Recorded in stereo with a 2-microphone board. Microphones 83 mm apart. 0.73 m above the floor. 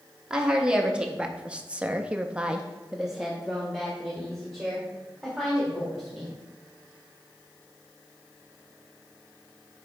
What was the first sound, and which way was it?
A woman speaking, 10° right (ahead or behind).